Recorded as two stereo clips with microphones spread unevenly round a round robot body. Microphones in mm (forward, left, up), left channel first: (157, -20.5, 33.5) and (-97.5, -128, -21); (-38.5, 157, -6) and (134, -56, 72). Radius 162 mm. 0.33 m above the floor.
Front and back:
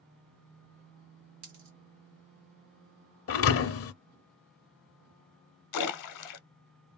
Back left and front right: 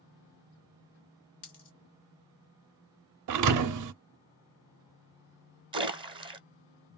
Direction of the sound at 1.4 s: 170° left.